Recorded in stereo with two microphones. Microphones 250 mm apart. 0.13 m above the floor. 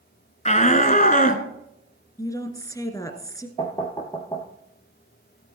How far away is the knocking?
About 1.6 m.